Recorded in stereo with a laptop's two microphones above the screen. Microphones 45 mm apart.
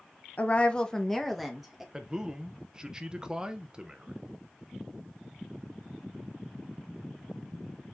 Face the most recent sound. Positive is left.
turn(degrees=-15)  # may be behind; listen again after turning